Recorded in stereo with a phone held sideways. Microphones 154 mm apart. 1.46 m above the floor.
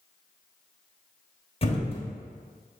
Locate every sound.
1.6 s a thud: 40° left (ahead or behind), 1.1 m